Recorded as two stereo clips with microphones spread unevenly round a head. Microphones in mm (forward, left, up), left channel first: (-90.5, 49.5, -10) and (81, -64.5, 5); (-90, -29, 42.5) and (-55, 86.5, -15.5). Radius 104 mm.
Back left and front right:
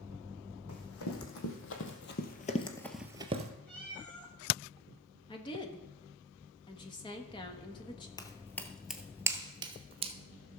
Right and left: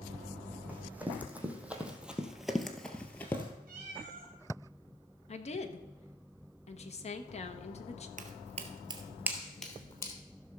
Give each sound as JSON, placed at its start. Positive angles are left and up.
{"t": 0.7, "sound": "running footsteps", "azimuth_deg": 160, "distance_m": 3.0}
{"t": 3.7, "sound": "a cat meowing", "azimuth_deg": 60, "distance_m": 2.5}
{"t": 5.3, "sound": "a woman speaking", "azimuth_deg": -150, "distance_m": 1.2}
{"t": 8.2, "sound": "footsteps", "azimuth_deg": 80, "distance_m": 1.0}